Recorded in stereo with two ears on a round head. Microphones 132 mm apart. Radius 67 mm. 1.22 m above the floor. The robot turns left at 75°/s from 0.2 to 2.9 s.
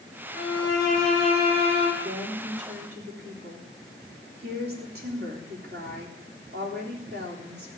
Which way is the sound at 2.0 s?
35° right.